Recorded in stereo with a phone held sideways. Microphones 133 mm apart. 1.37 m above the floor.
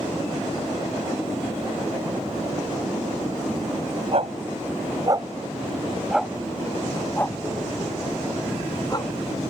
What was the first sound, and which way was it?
A dog barking, 55° right (ahead or behind).